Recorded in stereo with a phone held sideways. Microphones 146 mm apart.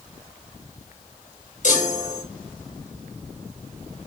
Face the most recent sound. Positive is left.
turn(degrees=55)  # may be behind; listen again after turning